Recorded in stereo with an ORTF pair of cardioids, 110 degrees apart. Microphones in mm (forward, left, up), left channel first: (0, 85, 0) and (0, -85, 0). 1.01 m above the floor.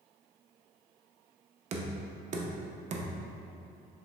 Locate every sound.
1.7 s knocking: 45° right, 0.5 m